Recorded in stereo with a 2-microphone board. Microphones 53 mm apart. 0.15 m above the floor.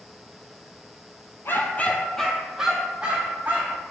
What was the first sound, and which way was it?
A dog barking, 50° left (ahead or behind).